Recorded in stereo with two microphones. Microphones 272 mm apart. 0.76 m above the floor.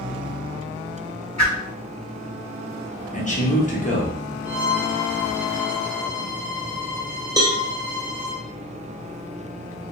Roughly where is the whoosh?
Right.